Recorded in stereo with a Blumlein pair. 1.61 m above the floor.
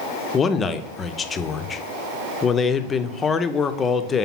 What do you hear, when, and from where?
0.3 s a man speaking: 20° left, 0.6 m